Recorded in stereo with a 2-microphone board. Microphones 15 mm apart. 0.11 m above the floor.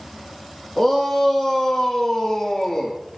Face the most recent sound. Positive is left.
turn(degrees=15)  # may be behind; listen again after turning